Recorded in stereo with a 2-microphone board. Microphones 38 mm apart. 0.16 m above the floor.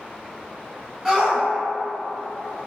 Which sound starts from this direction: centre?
A shout, at 1.1 s.